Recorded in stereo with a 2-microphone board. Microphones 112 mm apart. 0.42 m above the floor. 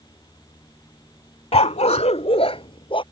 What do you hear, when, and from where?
1.5 s a dog barking: 65° left (ahead or behind); by 3.0 s 50° left (ahead or behind)